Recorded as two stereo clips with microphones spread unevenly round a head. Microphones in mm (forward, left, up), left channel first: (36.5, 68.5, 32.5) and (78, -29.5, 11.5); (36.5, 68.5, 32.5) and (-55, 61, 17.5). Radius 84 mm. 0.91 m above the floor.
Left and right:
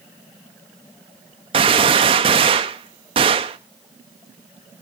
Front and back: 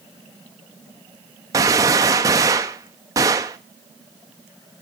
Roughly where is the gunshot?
Behind right.